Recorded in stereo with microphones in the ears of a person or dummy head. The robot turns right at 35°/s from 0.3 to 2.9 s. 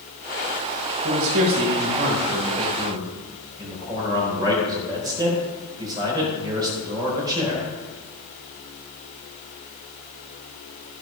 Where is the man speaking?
85° right, 4 m; by 7.7 s 20° right, 4 m.